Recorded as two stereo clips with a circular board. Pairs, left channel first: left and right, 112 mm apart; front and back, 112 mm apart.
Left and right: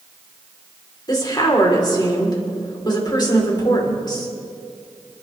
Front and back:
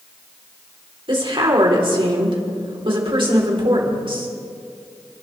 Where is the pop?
I don't hear a pop.